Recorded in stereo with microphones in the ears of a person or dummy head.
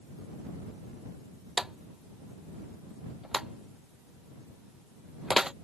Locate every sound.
1.6 s a drawer: centre (ahead or behind)